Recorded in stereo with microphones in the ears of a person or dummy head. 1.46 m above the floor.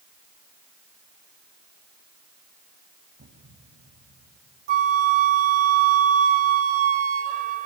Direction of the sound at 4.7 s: 40° right (ahead or behind).